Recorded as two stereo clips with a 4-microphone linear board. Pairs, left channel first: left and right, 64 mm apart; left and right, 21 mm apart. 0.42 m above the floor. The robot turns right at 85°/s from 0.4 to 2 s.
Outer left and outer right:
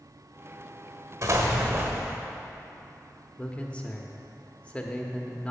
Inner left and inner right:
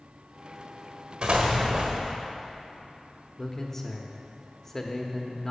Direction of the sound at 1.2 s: 110° right.